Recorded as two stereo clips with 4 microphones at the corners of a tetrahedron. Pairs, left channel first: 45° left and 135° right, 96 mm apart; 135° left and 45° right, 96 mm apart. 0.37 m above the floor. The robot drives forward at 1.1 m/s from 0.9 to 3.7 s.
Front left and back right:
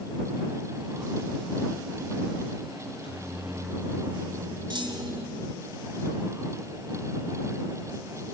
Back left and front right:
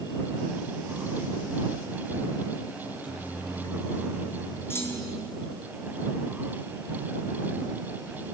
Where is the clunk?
165° right, 2.5 m.